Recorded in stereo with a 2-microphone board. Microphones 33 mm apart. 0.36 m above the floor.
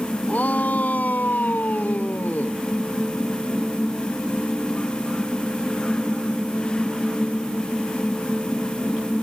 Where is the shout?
50° left (ahead or behind); by 2.6 s 60° left (ahead or behind).